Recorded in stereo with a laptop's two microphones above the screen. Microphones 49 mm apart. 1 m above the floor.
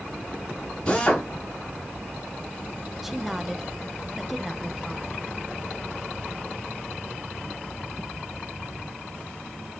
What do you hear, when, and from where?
0.9 s a drill: 20° left (ahead or behind), 4.5 m
3.0 s a woman speaking: 5° right (ahead or behind), 0.6 m